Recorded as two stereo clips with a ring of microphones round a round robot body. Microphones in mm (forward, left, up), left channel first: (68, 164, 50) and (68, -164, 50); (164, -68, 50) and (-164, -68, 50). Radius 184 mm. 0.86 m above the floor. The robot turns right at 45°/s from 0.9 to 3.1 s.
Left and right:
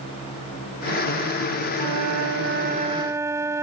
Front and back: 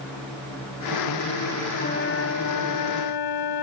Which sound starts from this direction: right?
A flute, at 1.8 s.